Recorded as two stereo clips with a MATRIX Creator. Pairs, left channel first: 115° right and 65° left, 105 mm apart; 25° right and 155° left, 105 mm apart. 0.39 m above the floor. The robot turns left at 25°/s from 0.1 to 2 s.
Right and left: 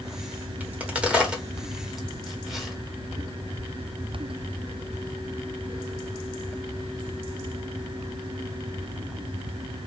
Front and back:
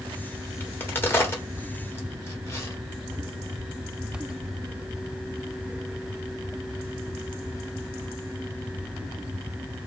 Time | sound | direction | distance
0.6 | a crack | 20° left | 1.2 m